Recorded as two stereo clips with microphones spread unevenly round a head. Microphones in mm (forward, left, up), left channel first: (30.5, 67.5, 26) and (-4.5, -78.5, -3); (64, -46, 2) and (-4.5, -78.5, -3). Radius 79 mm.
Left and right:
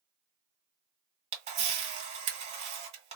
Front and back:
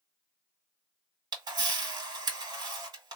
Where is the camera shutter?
145° right, 1.6 m.